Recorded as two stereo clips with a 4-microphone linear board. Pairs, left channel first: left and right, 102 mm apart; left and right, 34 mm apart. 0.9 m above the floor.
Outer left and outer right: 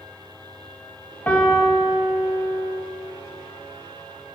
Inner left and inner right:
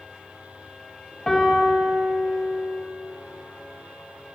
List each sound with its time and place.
1.3 s a piano: 15° left (ahead or behind), 1.0 m